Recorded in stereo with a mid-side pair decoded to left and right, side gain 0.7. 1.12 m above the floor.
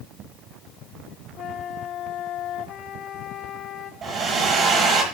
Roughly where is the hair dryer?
Ahead right.